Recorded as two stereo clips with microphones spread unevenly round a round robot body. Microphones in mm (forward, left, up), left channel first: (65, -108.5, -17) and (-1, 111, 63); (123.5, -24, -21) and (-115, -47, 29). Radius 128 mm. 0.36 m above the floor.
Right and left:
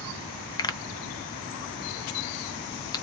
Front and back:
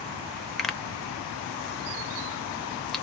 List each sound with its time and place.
0.6 s a pop: 65° right, 0.6 m